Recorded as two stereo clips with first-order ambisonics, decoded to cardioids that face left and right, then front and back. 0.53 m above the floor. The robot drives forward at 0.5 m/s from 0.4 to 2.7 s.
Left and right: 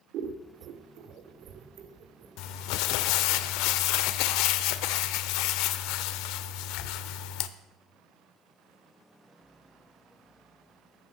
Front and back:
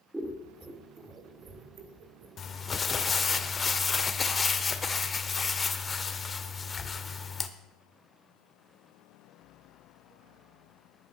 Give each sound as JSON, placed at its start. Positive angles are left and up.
{"t": 0.1, "sound": "scissors", "azimuth_deg": -100, "distance_m": 1.5}
{"t": 2.4, "sound": "crumpling", "azimuth_deg": 60, "distance_m": 0.8}